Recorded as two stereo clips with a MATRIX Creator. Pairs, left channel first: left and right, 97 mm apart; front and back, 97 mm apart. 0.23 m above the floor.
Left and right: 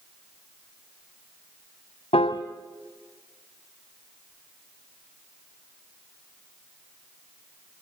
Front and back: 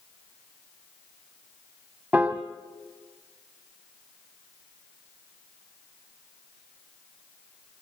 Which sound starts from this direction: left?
A piano, at 2.1 s.